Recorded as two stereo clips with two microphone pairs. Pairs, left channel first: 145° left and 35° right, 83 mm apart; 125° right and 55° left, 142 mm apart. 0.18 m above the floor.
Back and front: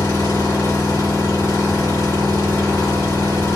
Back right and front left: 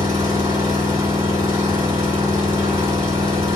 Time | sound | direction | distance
0.0 | an engine running | 110° left | 2 m